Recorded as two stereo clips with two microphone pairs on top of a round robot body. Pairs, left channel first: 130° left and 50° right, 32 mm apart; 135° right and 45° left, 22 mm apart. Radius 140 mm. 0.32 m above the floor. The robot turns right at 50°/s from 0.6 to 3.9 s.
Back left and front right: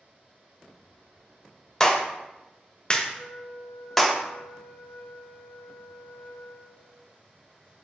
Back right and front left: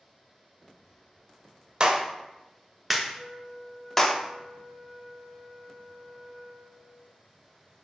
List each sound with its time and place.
1.8 s a clap: 90° left, 0.7 m; by 4.2 s 165° right, 0.7 m
3.1 s a flute: 125° left, 2 m; by 7.1 s 165° left, 2 m